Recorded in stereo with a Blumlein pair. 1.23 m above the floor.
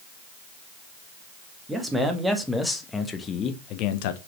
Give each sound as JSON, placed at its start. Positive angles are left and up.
{"t": 1.7, "sound": "a man speaking", "azimuth_deg": -10, "distance_m": 2.0}